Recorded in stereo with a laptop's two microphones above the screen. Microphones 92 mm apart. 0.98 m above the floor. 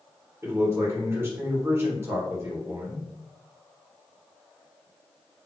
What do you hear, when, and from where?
0.4 s a man speaking: 25° right (ahead or behind), 1.4 m